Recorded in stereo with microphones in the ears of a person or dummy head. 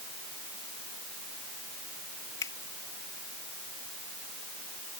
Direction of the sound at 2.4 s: 20° left (ahead or behind).